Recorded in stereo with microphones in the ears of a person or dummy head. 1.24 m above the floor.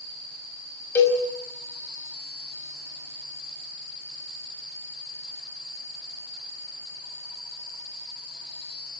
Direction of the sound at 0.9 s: 10° left (ahead or behind).